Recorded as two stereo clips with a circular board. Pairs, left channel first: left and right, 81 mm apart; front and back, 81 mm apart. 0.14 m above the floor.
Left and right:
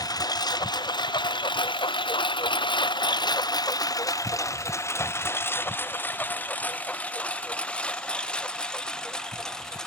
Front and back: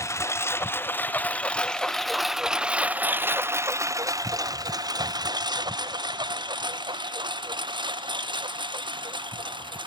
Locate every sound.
0.0 s a lawn mower: 50° left; by 9.9 s 175° left